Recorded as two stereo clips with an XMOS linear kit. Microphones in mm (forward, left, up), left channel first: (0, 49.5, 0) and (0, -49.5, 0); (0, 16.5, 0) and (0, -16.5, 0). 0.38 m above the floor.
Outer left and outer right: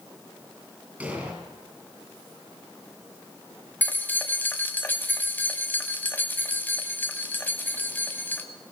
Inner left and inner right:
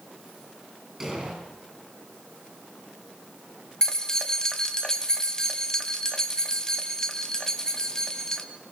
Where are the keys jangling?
20° left (ahead or behind), 1.7 m.